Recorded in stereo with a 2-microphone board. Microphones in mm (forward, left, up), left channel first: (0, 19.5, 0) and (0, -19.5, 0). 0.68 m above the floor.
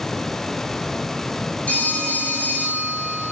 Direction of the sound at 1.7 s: 35° left (ahead or behind).